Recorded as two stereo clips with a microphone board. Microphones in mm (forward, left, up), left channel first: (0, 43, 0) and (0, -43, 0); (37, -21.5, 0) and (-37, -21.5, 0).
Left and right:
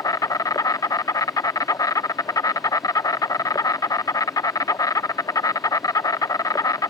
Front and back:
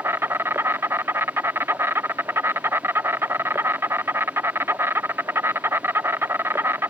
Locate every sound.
0.0 s an insect: 130° left